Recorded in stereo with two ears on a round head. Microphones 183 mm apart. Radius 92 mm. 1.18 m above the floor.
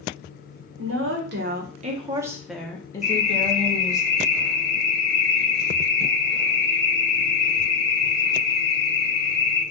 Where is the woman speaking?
70° right (ahead or behind), 1.1 m; by 4.0 s 35° left (ahead or behind), 1.5 m.